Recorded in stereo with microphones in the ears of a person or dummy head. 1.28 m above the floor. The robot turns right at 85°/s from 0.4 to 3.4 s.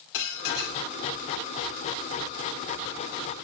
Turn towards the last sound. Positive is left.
turn(degrees=-40)